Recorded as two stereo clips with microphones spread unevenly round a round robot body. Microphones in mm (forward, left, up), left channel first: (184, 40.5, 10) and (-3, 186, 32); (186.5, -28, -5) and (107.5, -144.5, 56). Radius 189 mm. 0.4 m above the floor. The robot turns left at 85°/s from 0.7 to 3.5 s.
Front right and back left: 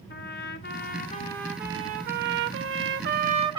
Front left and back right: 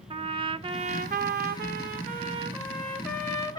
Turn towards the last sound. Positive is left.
turn(degrees=70)